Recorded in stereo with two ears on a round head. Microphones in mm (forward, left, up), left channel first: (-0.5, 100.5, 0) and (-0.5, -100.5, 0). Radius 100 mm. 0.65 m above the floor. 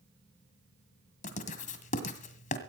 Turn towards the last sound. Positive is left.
turn(degrees=35)  # may be behind; listen again after turning